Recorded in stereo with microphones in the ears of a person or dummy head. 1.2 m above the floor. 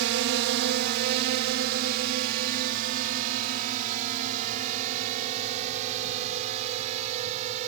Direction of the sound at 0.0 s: 60° right (ahead or behind).